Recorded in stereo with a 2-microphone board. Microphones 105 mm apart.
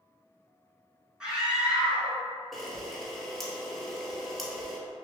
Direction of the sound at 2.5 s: Centre (ahead or behind).